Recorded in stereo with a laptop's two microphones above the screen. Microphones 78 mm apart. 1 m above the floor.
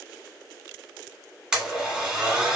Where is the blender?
10° right (ahead or behind), 1.5 m.